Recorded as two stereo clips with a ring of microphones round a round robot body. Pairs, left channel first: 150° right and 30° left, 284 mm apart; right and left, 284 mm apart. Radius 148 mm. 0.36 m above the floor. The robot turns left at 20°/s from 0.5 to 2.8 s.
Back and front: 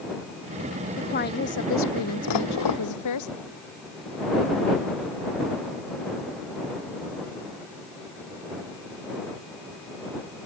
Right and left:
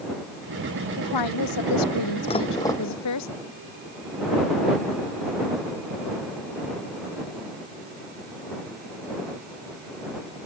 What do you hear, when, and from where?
1.0 s a woman speaking: 85° right; by 3.3 s 125° right
2.3 s dishes clattering: 160° right; by 2.8 s 170° right